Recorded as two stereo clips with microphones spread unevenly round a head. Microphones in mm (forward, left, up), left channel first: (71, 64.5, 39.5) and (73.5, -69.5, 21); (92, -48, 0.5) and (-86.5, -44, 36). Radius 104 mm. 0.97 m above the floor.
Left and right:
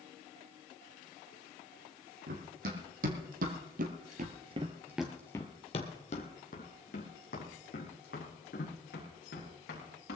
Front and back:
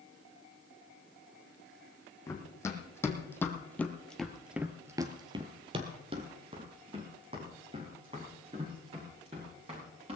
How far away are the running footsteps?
About 3 m.